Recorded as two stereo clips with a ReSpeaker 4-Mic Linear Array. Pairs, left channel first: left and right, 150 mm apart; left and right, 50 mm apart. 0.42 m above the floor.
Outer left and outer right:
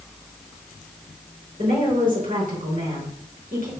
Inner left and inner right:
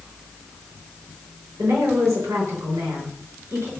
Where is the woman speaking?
70° right (ahead or behind), 4.5 m.